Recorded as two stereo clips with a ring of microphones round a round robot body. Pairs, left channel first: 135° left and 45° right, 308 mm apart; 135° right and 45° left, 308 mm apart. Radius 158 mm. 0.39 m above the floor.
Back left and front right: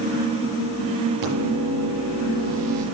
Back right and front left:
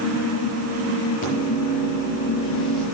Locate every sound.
1.2 s a microwave: 70° right, 6.5 m